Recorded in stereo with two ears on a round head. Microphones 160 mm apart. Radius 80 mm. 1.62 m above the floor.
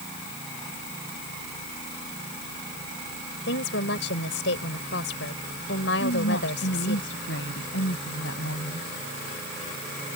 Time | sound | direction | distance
3.5 | a woman speaking | 75° left (ahead or behind) | ?
6.0 | a woman speaking | 80° left | ?